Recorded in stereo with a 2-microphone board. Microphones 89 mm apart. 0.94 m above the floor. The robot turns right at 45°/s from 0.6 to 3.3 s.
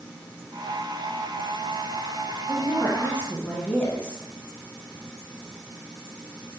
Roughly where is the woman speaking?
Behind left.